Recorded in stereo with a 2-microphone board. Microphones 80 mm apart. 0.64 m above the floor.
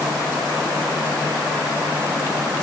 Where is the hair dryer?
I don't hear a hair dryer.